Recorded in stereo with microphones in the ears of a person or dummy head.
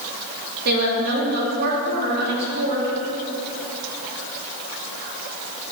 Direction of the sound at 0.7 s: 55° right (ahead or behind).